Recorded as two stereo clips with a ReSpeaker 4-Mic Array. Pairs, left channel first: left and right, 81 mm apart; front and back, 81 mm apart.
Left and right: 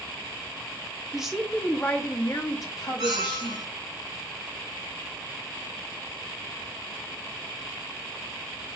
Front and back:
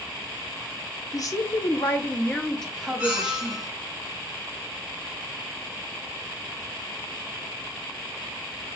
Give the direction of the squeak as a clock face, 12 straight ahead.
3 o'clock.